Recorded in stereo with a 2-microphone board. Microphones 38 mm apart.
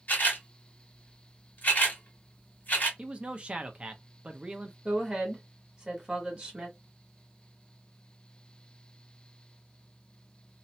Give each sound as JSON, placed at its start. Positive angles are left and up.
{"t": 0.1, "sound": "a camera shutter", "side_deg": 50, "distance_m": 1.6}
{"t": 3.0, "sound": "a man speaking", "side_deg": -30, "distance_m": 0.6}
{"t": 4.8, "sound": "a woman speaking", "side_deg": -25, "distance_m": 1.5}